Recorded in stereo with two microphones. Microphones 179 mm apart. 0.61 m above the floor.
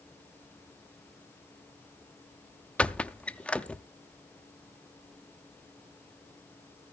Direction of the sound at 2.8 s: 5° left (ahead or behind).